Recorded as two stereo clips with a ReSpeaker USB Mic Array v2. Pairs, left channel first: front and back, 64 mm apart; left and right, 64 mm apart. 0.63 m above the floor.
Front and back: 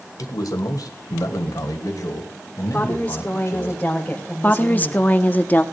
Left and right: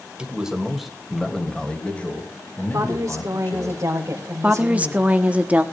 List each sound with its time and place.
0.2 s a man speaking: 15° right, 2.5 m; by 3.7 s 40° left, 4.5 m
2.7 s a woman speaking: 65° right, 2.5 m
4.4 s a woman speaking: 40° right, 1.2 m